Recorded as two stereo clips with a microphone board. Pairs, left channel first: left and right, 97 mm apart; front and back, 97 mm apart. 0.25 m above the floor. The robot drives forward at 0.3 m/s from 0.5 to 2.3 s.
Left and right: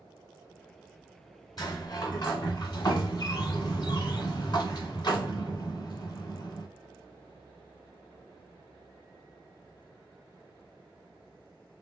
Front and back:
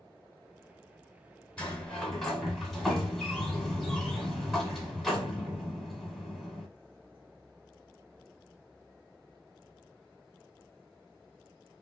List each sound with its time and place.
1.6 s a sliding door: 75° left, 1.1 m; by 6.7 s 90° left, 1.1 m